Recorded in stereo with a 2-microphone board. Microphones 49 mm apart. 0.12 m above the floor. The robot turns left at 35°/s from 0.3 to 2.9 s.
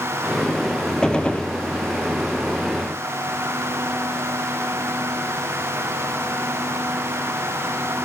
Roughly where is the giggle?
No giggle in this recording.